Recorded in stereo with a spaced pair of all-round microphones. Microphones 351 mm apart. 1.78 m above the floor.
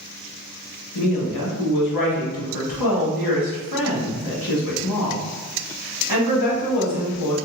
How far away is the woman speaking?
About 0.9 m.